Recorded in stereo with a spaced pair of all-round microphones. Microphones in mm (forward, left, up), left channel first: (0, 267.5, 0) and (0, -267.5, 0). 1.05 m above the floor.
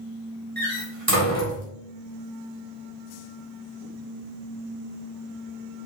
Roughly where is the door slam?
Right.